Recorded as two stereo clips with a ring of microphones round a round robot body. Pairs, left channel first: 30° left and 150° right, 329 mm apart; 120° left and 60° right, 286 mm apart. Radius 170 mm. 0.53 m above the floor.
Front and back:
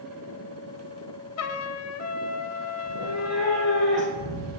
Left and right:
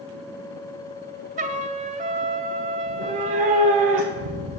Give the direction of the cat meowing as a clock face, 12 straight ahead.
2 o'clock.